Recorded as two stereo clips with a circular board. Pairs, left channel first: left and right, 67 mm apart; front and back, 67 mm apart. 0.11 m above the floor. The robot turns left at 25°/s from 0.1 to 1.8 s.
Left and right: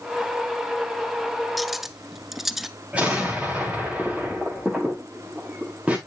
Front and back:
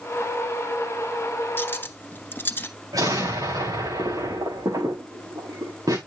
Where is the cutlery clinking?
Straight ahead, 0.8 m; by 2.7 s 5° right, 0.8 m.